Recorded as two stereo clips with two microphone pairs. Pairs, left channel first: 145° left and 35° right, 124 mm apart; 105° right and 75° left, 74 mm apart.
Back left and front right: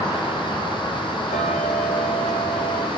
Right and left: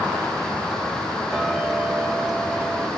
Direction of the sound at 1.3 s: 150° left.